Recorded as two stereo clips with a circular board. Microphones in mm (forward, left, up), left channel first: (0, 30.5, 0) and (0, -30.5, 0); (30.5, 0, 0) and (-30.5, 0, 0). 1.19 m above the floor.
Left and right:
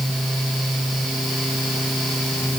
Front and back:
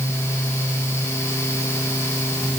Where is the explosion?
No explosion in this recording.